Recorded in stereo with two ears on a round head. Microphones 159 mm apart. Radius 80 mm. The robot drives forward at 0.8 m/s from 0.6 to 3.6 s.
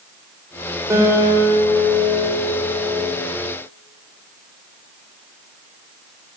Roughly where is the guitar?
Centre.